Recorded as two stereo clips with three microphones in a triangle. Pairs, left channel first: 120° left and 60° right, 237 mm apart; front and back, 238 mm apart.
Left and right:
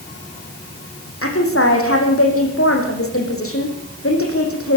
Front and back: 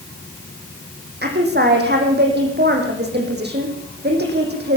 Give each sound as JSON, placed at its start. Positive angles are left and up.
{"t": 1.2, "sound": "a woman speaking", "azimuth_deg": 135, "distance_m": 5.5}